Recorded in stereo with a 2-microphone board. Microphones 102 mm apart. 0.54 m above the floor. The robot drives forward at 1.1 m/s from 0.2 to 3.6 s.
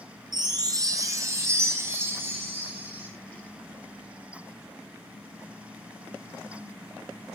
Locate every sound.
0.3 s a chime: 45° right (ahead or behind), 2 m; by 3.1 s 20° right (ahead or behind), 4.5 m